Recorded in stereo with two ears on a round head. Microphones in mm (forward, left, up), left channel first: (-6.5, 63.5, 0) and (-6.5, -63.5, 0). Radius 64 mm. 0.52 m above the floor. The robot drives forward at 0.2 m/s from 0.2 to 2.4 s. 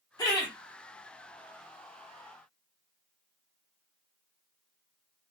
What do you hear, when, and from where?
0.2 s laughter: 25° left (ahead or behind), 1.4 m